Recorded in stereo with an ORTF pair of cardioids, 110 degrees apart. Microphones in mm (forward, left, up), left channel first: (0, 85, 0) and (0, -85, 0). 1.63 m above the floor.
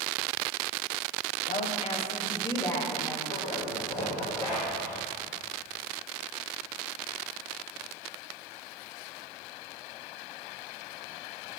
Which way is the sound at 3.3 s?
45° left.